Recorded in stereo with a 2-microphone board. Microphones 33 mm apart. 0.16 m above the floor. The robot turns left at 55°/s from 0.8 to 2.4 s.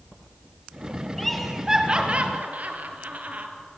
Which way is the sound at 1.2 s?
10° left (ahead or behind).